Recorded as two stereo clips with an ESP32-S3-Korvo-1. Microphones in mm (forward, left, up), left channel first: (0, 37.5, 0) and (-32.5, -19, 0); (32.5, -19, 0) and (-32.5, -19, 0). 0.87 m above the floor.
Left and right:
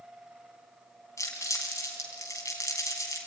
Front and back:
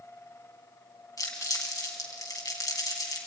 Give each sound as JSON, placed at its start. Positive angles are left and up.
{"t": 1.2, "sound": "crumpling", "azimuth_deg": 20, "distance_m": 4.0}